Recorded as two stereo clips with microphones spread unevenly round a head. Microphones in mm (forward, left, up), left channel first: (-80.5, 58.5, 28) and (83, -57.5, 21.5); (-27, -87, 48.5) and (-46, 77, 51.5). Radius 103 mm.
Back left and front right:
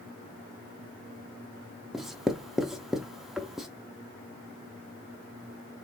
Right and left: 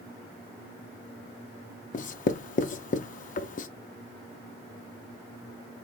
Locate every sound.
1.9 s writing: 125° right, 0.6 m